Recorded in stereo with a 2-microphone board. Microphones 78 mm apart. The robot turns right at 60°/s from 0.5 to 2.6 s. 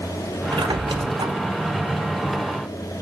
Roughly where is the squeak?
Right.